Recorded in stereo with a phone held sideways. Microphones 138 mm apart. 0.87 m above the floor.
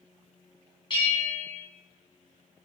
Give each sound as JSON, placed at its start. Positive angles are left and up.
{"t": 0.9, "sound": "a bell", "side_deg": 35, "distance_m": 0.8}